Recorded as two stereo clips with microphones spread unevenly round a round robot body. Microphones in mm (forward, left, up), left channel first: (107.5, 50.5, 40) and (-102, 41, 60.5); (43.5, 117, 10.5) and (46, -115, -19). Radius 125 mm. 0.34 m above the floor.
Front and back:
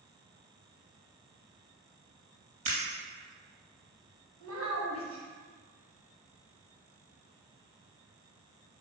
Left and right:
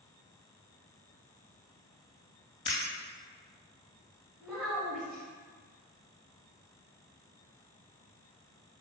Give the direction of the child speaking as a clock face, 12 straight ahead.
6 o'clock.